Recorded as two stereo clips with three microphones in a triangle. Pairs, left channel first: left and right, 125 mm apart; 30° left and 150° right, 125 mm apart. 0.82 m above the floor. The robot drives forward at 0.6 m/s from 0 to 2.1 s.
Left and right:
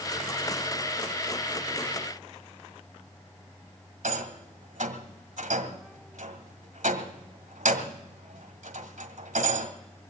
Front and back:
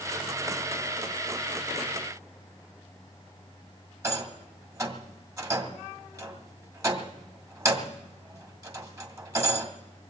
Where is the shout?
No shout in this recording.